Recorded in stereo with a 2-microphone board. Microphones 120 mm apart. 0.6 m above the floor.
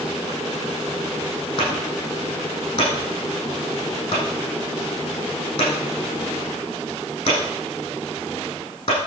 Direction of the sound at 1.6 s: 40° left (ahead or behind).